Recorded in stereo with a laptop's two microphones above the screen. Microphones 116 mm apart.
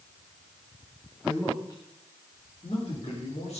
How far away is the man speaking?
About 1.5 m.